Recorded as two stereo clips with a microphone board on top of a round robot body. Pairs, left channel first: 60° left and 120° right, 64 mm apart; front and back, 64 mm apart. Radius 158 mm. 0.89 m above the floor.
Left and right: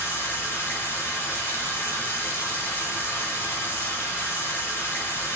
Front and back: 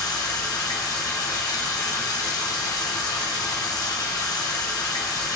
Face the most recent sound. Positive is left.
turn(degrees=5)